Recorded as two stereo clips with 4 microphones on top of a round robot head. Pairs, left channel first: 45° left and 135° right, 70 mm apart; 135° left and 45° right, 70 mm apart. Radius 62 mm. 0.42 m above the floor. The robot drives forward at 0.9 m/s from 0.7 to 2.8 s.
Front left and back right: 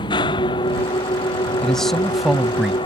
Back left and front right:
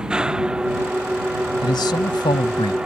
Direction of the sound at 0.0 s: 35° left.